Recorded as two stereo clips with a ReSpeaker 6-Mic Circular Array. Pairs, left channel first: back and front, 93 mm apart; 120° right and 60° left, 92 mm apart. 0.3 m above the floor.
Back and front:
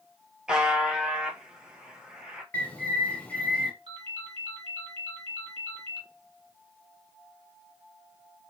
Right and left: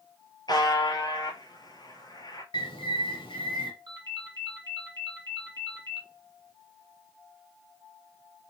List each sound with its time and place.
0.5 s a buzzer: 80° right, 1.0 m
2.5 s a bird: 105° right, 1.0 m
3.9 s a ringtone: 15° left, 1.1 m